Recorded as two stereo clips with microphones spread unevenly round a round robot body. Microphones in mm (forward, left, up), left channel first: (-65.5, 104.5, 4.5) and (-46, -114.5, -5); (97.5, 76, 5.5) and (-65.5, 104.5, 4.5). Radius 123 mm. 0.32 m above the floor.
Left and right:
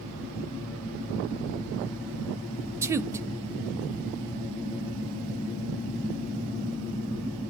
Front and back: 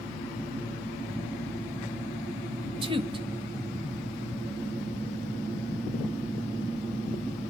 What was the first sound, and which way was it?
A woman speaking, 150° right.